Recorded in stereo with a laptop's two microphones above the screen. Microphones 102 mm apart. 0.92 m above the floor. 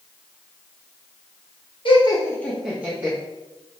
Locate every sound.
1.9 s laughter: 55° left (ahead or behind), 0.8 m; by 3.2 s 30° right (ahead or behind), 1.0 m